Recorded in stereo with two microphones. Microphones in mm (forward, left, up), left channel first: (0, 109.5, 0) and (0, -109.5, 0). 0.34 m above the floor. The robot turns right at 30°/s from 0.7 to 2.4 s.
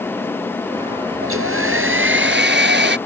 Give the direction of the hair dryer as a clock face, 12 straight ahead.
3 o'clock.